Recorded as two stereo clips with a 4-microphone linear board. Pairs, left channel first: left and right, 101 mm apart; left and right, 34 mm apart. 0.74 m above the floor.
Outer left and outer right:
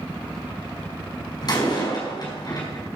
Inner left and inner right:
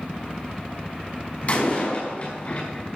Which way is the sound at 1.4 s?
45° left (ahead or behind).